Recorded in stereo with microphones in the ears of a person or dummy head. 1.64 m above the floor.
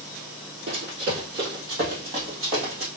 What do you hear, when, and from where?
0.7 s running footsteps: 45° right (ahead or behind), 2.5 m; by 2.9 s 15° right (ahead or behind), 1.7 m